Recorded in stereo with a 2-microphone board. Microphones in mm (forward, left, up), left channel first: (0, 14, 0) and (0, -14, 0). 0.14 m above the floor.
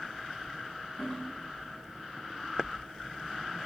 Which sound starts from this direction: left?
A toilet flushing, at 1.0 s.